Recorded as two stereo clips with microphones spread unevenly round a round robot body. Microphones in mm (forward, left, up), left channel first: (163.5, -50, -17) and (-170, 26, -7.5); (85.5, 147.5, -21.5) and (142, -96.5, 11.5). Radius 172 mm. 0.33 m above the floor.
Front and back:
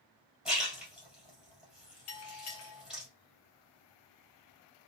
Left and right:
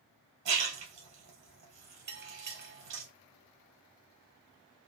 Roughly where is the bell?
Ahead right.